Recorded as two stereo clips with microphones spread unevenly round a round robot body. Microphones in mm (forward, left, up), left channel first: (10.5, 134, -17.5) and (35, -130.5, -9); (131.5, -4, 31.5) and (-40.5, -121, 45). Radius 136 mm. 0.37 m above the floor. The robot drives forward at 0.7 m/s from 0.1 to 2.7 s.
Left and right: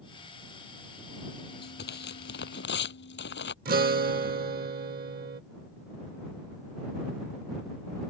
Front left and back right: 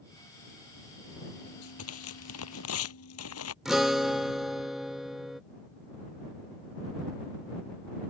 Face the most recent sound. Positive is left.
turn(degrees=-55)